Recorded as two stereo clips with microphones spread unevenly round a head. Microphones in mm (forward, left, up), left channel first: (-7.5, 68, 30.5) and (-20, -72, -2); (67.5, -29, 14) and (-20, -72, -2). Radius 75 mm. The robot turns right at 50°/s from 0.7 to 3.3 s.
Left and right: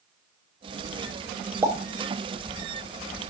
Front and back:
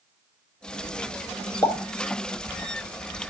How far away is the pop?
About 0.9 m.